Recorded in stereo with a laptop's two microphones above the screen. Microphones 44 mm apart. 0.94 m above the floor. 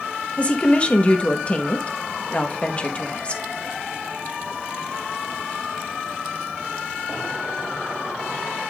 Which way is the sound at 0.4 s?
25° left (ahead or behind).